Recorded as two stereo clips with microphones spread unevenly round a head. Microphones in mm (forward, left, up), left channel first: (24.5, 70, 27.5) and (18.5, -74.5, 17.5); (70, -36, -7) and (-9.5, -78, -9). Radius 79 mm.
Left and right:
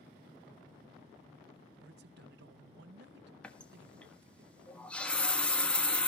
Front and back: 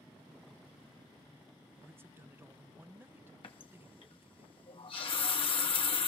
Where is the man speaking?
85° right, 0.6 m.